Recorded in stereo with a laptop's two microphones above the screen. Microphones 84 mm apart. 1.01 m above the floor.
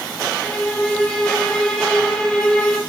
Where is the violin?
10° left (ahead or behind), 1.5 m.